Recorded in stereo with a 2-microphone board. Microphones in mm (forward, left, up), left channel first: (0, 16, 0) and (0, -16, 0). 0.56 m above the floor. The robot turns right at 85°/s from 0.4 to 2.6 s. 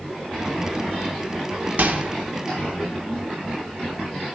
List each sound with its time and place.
1.8 s a microwave: 60° right (ahead or behind), 0.7 m; by 2.1 s 55° right (ahead or behind), 0.7 m